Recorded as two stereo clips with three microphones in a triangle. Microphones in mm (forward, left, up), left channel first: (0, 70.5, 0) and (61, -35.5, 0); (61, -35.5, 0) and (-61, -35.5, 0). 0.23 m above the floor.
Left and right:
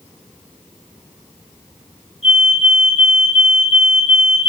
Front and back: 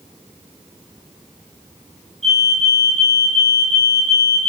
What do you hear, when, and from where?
2.2 s a fire alarm: 90° left, 7 m